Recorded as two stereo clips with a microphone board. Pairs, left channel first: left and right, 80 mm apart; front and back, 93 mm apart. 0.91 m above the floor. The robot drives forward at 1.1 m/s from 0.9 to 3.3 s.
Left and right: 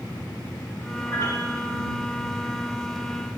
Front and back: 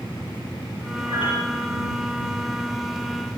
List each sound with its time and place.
1.1 s a piano: 35° left, 7 m; by 1.7 s 40° left, 6.5 m